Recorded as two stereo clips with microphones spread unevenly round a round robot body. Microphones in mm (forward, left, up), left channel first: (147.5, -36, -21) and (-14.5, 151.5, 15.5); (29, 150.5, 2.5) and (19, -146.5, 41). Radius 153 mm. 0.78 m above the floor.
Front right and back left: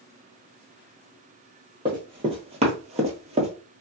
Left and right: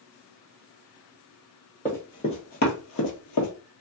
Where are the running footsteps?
Straight behind, 0.9 m; by 3.5 s 85° left, 1.0 m.